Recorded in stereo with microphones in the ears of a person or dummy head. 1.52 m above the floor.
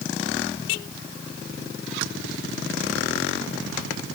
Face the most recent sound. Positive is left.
No sound to turn to.